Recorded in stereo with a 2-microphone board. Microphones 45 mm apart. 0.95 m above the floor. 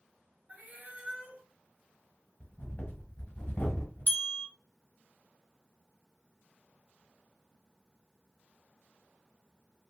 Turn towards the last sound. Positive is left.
turn(degrees=50)  # may be behind; listen again after turning